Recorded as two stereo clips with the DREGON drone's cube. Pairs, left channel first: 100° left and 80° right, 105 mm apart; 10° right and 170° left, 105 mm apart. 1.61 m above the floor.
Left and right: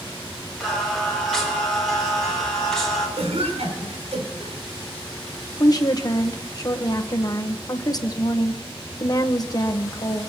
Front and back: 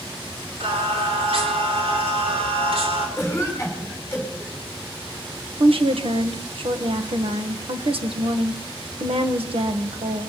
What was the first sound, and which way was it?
Singing, 175° right.